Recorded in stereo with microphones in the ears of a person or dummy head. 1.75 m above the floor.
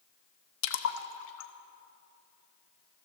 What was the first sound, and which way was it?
A splash, 75° left (ahead or behind).